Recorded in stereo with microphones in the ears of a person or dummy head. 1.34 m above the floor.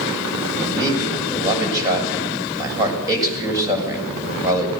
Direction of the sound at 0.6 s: 20° right (ahead or behind).